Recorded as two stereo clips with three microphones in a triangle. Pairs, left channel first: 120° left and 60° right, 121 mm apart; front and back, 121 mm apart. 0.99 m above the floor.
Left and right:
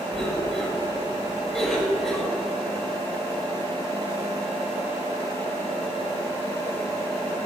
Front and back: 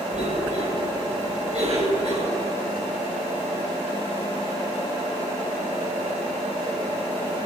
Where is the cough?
150° right, 5 m.